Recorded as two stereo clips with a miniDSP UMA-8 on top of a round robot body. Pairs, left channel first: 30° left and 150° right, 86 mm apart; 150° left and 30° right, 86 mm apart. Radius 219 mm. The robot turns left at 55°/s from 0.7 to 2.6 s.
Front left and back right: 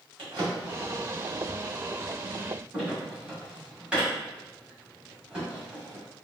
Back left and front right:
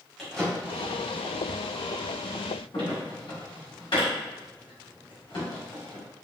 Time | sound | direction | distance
0.2 | a drawer | 125° right | 1.8 m